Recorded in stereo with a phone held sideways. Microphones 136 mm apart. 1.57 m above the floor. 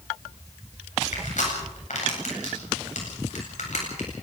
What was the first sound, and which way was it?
Crushing, 70° left (ahead or behind).